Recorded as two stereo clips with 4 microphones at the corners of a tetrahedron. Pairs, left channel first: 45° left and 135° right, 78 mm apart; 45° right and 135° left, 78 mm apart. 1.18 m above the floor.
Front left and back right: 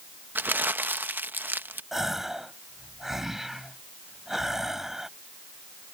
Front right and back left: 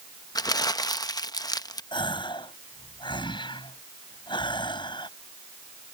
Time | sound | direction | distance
0.3 | crumpling | 75° right | ?
1.9 | a gasp | 50° right | ?